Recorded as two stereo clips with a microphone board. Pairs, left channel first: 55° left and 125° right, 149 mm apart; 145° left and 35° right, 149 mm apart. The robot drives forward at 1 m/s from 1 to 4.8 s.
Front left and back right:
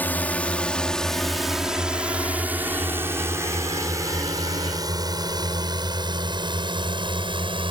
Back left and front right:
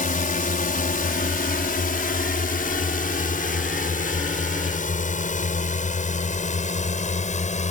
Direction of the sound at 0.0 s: 135° left.